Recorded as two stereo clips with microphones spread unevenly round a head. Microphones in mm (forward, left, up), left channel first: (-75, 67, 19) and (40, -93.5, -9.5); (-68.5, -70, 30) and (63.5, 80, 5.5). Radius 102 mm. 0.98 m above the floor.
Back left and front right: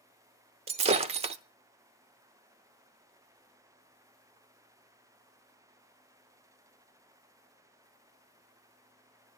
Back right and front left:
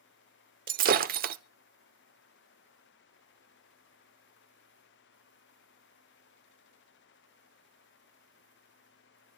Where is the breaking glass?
5° left, 0.8 m.